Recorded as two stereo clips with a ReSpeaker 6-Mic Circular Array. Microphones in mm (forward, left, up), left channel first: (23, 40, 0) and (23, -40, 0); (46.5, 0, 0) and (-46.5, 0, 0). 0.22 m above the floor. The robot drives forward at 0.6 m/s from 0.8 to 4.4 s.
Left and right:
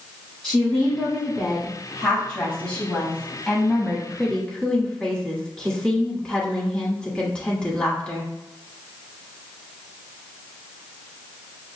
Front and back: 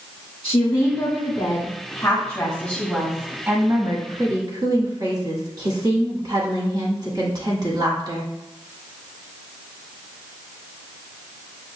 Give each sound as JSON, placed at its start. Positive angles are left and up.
{"t": 0.4, "sound": "a woman speaking", "azimuth_deg": 10, "distance_m": 1.6}